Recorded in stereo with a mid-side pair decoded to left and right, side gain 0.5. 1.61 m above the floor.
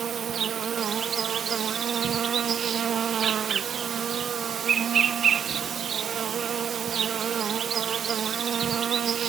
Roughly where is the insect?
Ahead right.